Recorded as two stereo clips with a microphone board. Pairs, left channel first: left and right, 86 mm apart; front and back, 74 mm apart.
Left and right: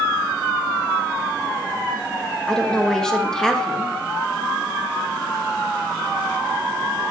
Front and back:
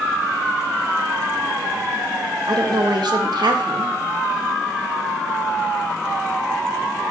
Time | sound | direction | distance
2.5 | a woman speaking | 170° left | 1.0 m